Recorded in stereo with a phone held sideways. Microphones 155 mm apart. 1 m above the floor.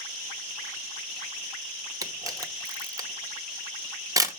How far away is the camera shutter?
About 0.8 m.